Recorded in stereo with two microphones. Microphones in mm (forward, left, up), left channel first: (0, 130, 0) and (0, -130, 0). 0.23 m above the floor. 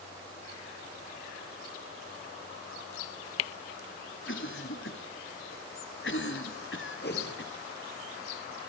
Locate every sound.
4.3 s a cough: 50° left (ahead or behind), 1.7 m
7.0 s a whoosh: 40° left (ahead or behind), 3 m